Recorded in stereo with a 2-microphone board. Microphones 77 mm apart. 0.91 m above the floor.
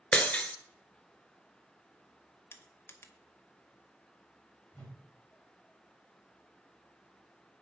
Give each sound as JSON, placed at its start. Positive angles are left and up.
{"t": 0.1, "sound": "breaking glass", "side_deg": 15, "distance_m": 0.9}
{"t": 2.5, "sound": "crushing", "side_deg": 30, "distance_m": 0.8}
{"t": 4.7, "sound": "a whoosh", "side_deg": 20, "distance_m": 2.5}